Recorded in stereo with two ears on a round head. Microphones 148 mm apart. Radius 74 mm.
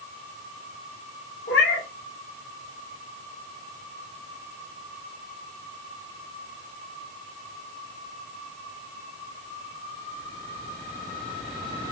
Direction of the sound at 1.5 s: 65° left (ahead or behind).